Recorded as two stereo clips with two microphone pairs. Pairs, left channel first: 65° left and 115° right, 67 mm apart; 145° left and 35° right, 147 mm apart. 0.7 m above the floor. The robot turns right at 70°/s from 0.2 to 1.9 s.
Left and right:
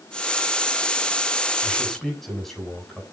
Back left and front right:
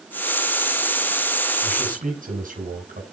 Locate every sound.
1.6 s a man speaking: 40° right, 6.5 m; by 3.0 s 20° right, 6.5 m